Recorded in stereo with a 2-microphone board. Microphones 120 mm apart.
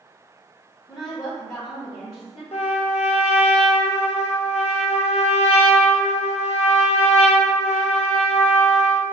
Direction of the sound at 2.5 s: 70° left (ahead or behind).